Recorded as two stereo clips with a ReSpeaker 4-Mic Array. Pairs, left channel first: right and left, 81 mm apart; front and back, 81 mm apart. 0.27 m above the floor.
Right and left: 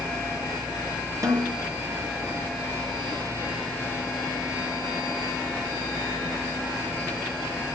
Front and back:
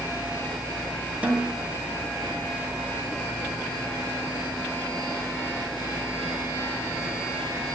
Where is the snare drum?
115° left, 2 m.